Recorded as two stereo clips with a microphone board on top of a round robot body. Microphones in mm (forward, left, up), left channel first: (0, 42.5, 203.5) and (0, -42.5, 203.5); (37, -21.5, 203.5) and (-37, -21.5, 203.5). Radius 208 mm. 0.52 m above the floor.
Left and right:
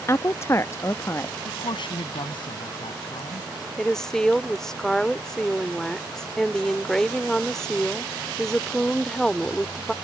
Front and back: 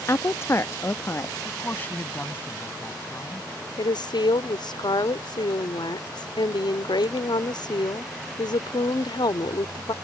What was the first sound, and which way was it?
A woman speaking, 40° left.